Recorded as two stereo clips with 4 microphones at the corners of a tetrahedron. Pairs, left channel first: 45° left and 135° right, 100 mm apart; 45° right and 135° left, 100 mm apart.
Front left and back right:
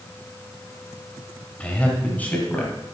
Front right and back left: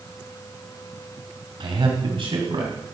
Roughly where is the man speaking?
Behind left.